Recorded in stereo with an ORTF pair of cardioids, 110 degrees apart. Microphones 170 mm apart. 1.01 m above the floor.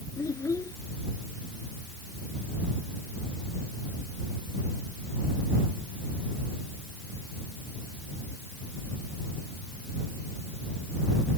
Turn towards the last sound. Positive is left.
turn(degrees=20)